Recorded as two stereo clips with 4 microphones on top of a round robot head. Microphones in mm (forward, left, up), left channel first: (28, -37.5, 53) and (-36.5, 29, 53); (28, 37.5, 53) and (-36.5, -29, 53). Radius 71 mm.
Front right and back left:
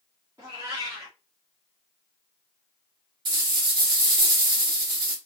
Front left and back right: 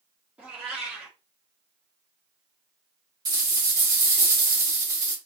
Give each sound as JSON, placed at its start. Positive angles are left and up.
{"t": 0.4, "sound": "a cat meowing", "azimuth_deg": 165, "distance_m": 0.7}
{"t": 3.2, "sound": "a rattle", "azimuth_deg": 175, "distance_m": 1.1}